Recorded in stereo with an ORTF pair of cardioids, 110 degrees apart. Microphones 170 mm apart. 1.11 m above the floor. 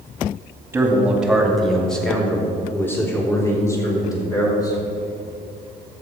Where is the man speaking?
10° right, 2.5 m; by 4.8 s 25° left, 5 m.